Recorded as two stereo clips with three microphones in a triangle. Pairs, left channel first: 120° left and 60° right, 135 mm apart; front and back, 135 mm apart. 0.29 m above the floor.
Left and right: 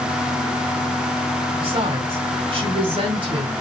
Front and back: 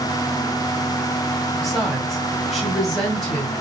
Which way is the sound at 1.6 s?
90° right.